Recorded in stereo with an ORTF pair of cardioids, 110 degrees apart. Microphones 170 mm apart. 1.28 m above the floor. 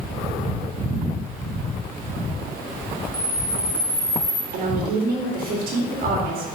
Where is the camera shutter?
40° left, 1.4 m.